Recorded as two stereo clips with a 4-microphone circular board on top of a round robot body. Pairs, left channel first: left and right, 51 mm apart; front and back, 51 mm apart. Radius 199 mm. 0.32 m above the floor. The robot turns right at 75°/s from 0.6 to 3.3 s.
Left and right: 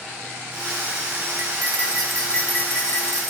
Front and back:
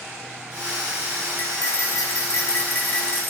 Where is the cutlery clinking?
55° right, 6.5 m; by 3.3 s 90° left, 6.5 m.